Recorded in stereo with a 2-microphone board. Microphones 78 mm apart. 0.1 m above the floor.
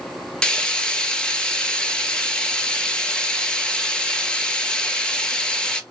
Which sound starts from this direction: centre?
Frying, at 0.4 s.